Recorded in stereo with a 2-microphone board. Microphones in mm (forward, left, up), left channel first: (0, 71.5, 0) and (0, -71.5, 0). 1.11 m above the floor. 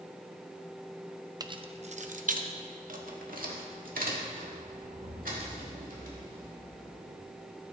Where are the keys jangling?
25° right (ahead or behind), 0.6 m; by 7.2 s 85° right, 4 m.